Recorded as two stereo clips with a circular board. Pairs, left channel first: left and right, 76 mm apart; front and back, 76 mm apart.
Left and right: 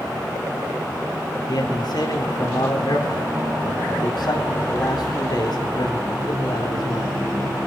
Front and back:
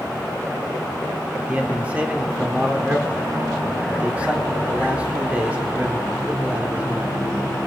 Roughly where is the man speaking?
Left.